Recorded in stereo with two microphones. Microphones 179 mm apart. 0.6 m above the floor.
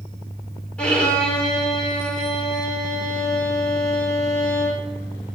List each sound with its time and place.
0.8 s a violin: 5° left (ahead or behind), 1.4 m